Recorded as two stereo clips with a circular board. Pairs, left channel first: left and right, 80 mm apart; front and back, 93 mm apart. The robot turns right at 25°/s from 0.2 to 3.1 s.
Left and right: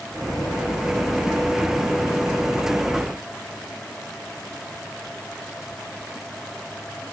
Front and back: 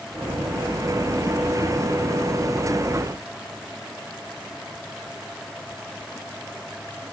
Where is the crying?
I don't hear crying.